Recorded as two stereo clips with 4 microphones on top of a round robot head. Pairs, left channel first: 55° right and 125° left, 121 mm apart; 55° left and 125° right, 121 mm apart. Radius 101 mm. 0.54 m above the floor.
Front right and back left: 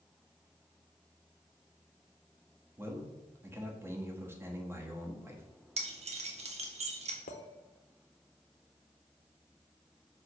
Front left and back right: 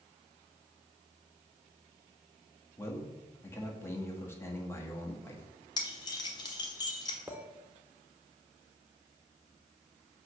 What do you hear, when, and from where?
2.8 s a man speaking: 90° left, 1.2 m
5.8 s keys jangling: 105° left, 1.2 m
7.3 s a clink: 45° right, 0.9 m